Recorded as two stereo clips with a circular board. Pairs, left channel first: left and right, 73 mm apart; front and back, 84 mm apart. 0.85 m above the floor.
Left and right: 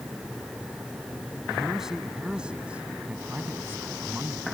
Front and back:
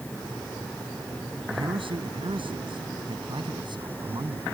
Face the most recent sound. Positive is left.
turn(degrees=-145)